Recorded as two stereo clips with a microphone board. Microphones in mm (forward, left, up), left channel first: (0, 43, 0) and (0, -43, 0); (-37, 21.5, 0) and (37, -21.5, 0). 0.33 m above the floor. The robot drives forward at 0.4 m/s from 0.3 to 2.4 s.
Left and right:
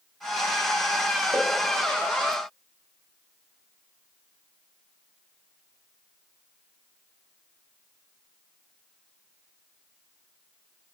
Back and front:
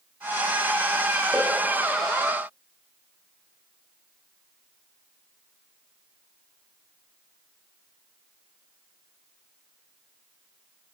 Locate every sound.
1.3 s a pop: 115° right, 1.3 m